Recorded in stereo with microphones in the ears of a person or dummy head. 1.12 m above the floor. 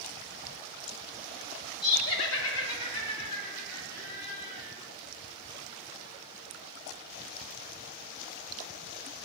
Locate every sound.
1.8 s laughter: 40° left (ahead or behind), 0.7 m; by 4.7 s 45° left (ahead or behind), 2.5 m